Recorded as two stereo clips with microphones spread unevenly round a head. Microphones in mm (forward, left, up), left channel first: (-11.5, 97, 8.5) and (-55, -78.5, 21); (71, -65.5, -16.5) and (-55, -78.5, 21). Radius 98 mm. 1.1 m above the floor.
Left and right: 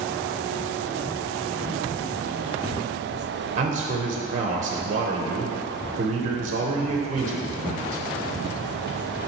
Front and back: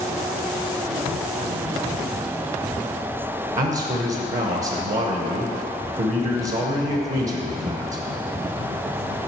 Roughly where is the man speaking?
Behind right.